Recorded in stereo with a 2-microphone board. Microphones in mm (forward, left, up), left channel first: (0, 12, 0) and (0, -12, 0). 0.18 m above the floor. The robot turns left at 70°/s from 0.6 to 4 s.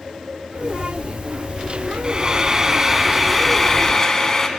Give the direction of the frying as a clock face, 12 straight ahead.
3 o'clock.